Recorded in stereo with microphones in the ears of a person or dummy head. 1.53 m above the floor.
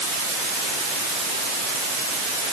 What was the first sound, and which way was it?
Only background noise.